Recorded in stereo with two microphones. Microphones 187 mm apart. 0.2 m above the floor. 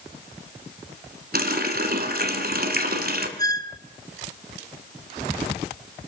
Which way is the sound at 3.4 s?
20° left (ahead or behind).